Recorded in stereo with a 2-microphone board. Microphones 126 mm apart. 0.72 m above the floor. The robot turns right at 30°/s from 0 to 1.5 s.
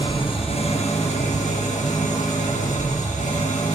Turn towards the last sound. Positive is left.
turn(degrees=85)